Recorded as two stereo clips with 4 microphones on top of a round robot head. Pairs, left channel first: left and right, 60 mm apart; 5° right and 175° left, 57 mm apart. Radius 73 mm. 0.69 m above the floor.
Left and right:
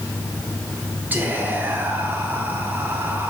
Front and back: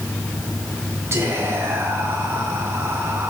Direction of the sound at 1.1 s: 145° right.